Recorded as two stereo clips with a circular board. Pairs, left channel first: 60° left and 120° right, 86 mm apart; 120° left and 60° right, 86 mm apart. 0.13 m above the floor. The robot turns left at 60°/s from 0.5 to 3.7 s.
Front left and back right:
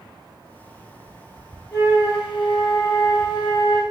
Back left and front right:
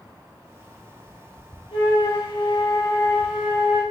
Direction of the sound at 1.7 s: 130° left.